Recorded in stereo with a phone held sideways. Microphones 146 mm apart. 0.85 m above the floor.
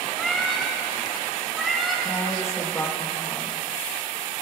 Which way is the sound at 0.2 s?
Centre (ahead or behind).